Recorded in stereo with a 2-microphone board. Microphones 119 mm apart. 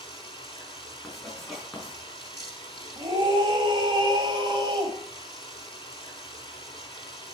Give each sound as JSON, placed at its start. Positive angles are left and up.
{"t": 0.0, "sound": "running water", "side_deg": 45, "distance_m": 2.5}
{"t": 1.0, "sound": "writing", "side_deg": 5, "distance_m": 4.0}
{"t": 3.0, "sound": "a scream", "side_deg": -40, "distance_m": 2.0}